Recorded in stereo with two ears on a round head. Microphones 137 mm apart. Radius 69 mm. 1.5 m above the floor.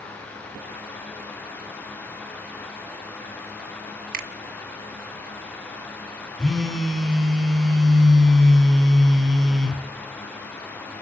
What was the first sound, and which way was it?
A finger snap, 60° right (ahead or behind).